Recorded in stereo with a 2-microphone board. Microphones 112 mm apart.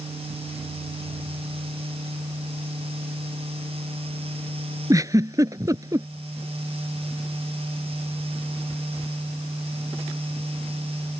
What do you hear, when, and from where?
4.9 s a giggle: 30° right (ahead or behind)